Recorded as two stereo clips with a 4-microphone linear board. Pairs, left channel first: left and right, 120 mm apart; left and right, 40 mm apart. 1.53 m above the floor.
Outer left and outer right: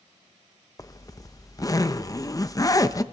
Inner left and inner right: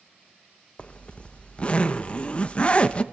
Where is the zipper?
30° left (ahead or behind), 0.7 m.